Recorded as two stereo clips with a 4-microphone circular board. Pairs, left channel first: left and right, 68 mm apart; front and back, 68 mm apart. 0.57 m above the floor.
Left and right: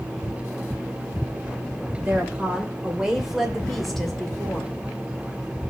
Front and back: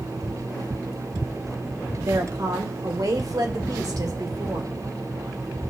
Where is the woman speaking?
155° right, 2.5 m; by 4.7 s 165° left, 2.5 m.